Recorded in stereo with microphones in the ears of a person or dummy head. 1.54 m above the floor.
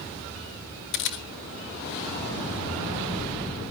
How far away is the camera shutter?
About 1.6 m.